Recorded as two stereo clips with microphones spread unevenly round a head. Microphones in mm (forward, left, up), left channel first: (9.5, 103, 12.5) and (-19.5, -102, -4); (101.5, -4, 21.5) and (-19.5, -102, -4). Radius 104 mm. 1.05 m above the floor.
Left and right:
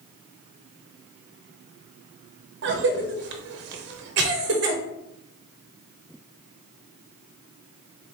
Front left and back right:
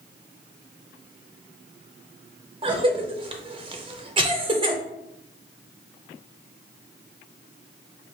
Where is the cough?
100° right, 0.6 m.